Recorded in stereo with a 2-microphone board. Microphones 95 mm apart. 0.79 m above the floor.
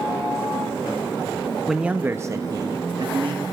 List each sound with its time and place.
1.7 s a man speaking: 5° right (ahead or behind), 0.6 m; by 3.4 s 55° right (ahead or behind), 1.1 m